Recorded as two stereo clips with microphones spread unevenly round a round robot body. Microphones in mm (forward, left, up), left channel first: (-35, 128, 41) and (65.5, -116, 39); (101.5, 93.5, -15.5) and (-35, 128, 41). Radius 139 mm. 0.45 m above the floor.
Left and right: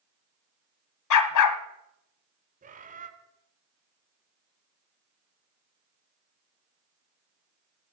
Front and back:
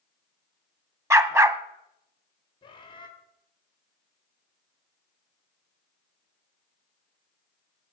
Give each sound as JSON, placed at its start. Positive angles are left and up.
{"t": 1.1, "sound": "a dog barking", "azimuth_deg": 90, "distance_m": 1.2}
{"t": 2.6, "sound": "a bird", "azimuth_deg": -15, "distance_m": 1.8}